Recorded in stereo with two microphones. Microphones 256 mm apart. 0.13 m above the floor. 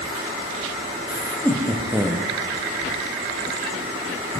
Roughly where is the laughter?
Centre.